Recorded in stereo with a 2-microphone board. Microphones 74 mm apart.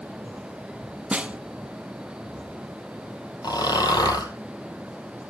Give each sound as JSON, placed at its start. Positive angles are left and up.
{"t": 1.1, "sound": "a snare drum", "side_deg": -15, "distance_m": 0.6}
{"t": 3.4, "sound": "snoring", "side_deg": 65, "distance_m": 1.9}